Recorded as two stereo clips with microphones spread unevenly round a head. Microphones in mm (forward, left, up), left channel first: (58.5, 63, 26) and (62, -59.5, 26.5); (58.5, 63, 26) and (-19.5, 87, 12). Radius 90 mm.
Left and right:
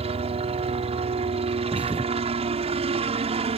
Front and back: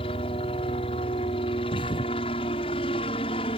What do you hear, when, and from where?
0.0 s a helicopter: 55° right
1.7 s a thud: 10° right